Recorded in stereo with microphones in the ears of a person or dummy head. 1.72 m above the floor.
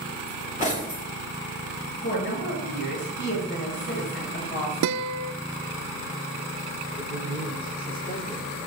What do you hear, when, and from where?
0.3 s cutlery clinking: 40° left (ahead or behind), 3 m
2.0 s a woman speaking: 55° left (ahead or behind), 7.5 m
4.8 s a guitar: 80° right, 0.6 m
7.0 s a man speaking: 30° left (ahead or behind), 8.5 m